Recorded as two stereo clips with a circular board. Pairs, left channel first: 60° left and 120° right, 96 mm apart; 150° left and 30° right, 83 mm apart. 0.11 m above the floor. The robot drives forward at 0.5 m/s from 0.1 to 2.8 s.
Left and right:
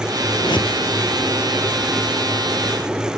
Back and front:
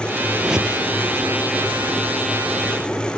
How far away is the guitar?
No guitar in this recording.